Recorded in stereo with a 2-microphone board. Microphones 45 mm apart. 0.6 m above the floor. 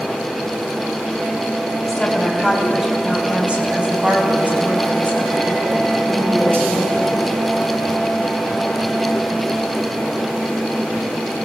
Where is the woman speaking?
Centre (ahead or behind), 4 m; by 7.2 s 60° right (ahead or behind), 7 m.